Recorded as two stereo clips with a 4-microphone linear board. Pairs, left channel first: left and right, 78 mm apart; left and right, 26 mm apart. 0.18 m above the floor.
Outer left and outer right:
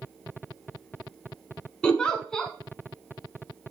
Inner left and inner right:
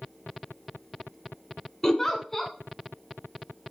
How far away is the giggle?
About 1.4 m.